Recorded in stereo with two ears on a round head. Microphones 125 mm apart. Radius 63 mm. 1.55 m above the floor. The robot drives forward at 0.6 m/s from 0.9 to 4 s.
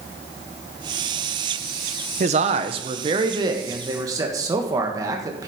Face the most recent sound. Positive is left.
turn(degrees=-25)  # may be behind; listen again after turning